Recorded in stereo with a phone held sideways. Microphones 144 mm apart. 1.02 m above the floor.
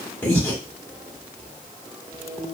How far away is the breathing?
About 1.1 m.